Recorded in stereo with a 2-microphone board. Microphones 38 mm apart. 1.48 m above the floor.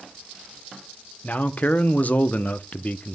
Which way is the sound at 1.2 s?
50° left (ahead or behind).